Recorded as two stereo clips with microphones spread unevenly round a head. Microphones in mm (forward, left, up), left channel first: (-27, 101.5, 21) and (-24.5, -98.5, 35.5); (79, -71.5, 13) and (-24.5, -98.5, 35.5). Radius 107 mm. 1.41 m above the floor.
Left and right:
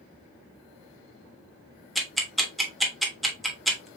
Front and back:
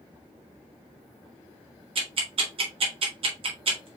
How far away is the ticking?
About 1.1 m.